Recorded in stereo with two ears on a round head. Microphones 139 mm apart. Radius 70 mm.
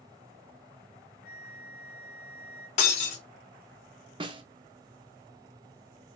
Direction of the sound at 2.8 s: 45° left (ahead or behind).